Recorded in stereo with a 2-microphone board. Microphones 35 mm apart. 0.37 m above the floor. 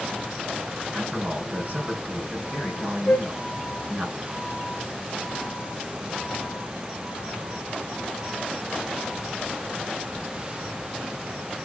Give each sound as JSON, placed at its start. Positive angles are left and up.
{"t": 0.9, "sound": "a man speaking", "side_deg": -50, "distance_m": 4.5}
{"t": 3.1, "sound": "a flute", "side_deg": 45, "distance_m": 0.8}